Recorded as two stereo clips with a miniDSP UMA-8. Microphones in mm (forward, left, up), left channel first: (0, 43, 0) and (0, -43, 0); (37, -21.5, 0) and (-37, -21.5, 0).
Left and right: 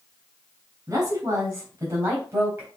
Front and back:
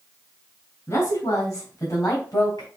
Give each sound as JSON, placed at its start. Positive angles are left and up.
{"t": 0.9, "sound": "a woman speaking", "azimuth_deg": -40, "distance_m": 3.5}